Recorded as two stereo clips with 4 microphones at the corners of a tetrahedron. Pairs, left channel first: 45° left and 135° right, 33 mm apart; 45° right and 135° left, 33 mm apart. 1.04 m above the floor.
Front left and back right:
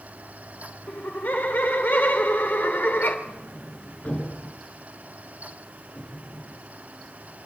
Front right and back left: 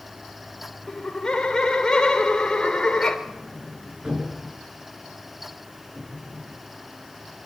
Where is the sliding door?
70° left, 5 m.